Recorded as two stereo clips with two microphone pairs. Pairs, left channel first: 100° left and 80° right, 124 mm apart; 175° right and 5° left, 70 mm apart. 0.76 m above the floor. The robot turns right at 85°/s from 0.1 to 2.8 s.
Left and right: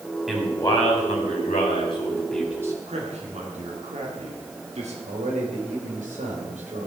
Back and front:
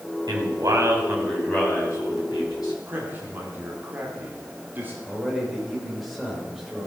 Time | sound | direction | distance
0.3 | a man speaking | 5° left | 3.5 m
2.9 | a man speaking | 55° right | 2.5 m
5.0 | a man speaking | 80° right | 3.5 m